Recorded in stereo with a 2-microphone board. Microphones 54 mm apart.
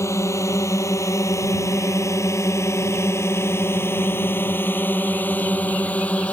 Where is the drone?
60° left (ahead or behind); by 6.3 s 25° left (ahead or behind).